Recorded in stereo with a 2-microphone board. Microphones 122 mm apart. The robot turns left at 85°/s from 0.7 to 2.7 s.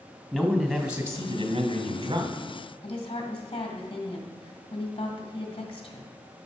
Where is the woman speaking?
45° left (ahead or behind), 2 m.